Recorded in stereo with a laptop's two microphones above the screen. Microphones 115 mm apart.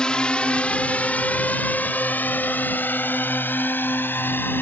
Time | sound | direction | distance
0.0 | a drone | 5° left (ahead or behind) | ?